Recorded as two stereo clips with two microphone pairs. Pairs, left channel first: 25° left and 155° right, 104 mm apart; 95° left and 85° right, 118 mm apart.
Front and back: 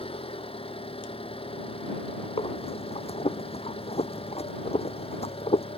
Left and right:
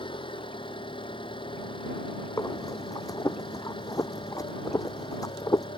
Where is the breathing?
35° left.